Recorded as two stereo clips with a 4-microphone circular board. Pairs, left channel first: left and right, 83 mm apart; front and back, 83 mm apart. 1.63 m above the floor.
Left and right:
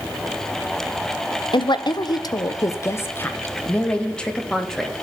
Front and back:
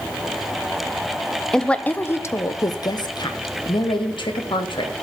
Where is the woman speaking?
85° left, 0.8 m; by 4.9 s 5° left, 1.8 m.